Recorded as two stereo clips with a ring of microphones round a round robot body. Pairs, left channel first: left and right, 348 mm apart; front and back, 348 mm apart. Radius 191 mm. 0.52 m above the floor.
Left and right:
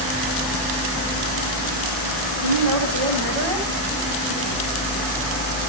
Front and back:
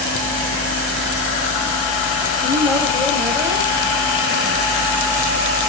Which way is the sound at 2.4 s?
85° right.